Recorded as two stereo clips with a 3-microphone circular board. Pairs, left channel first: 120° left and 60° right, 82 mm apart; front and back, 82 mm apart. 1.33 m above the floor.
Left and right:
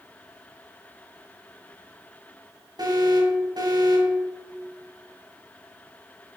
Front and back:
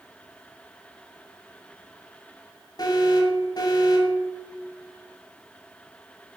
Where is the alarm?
30° right, 8 m.